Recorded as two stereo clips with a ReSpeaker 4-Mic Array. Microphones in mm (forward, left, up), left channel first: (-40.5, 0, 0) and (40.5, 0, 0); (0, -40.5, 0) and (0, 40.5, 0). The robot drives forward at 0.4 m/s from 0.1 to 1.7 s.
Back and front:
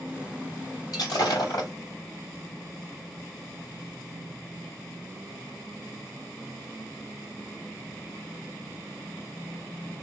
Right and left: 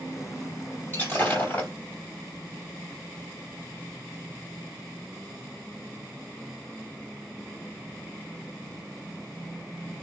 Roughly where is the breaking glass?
Behind right.